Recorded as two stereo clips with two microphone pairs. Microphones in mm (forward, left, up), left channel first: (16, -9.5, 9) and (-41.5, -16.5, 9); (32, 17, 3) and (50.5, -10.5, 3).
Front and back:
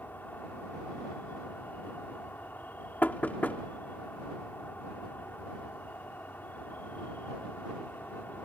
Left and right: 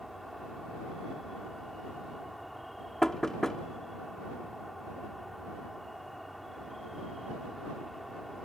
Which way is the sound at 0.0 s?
35° left.